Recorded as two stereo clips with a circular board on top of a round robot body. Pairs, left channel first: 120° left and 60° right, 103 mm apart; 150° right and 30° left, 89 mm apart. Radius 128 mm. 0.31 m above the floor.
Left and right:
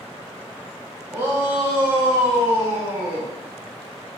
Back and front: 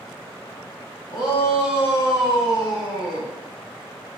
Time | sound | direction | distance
1.1 | a shout | 125° right | 3.5 m